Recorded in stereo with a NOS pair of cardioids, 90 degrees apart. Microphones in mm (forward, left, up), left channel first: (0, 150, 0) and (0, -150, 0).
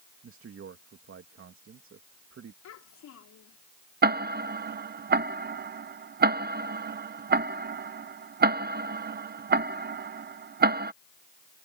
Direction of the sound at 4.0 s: 35° right.